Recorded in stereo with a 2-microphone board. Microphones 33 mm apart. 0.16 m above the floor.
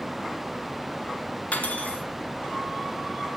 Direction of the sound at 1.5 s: 45° left (ahead or behind).